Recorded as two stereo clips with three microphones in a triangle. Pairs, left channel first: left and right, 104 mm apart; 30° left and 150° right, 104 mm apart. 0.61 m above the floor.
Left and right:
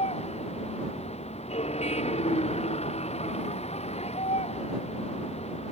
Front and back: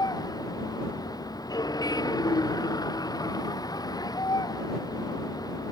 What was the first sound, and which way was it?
A vehicle, 80° left.